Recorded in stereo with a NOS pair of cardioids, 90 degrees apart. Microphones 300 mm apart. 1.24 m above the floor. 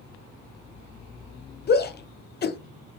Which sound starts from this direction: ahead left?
A shout, at 1.7 s.